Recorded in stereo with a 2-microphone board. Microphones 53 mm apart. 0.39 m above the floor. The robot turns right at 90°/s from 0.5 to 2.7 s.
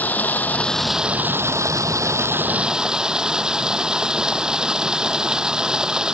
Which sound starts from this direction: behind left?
Running water, at 0.0 s.